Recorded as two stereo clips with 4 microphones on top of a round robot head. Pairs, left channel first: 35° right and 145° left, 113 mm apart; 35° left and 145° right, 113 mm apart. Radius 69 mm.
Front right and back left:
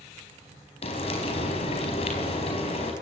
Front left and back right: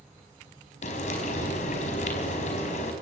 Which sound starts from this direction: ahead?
Frying, at 0.8 s.